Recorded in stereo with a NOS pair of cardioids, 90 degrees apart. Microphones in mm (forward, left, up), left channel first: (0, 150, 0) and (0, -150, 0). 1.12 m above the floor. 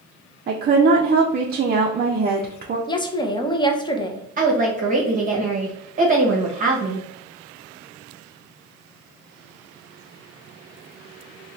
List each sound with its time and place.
0.5 s a woman speaking: 30° right, 0.5 m
2.9 s a woman speaking: 15° left, 0.6 m
4.4 s a woman speaking: 25° right, 0.9 m